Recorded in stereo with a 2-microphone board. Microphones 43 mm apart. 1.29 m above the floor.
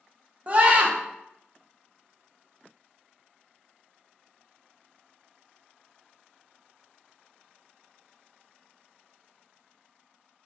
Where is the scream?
35° right (ahead or behind), 0.5 m.